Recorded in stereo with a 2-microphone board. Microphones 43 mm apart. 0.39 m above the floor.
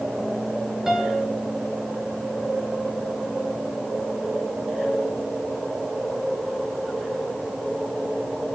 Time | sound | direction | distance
0.9 | a piano | 10° right (ahead or behind) | 3.5 m